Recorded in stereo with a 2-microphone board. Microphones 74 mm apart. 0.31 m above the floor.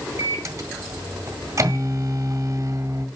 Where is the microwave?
45° right (ahead or behind), 1.5 m.